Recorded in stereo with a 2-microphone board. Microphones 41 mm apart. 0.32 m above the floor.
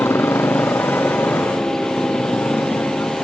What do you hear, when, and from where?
0.0 s a motorcycle: 90° left; by 3.2 s 75° left (ahead or behind)